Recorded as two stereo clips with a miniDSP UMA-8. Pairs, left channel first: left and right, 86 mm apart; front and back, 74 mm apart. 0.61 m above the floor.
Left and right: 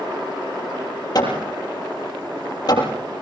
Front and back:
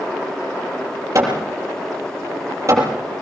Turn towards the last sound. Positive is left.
turn(degrees=130)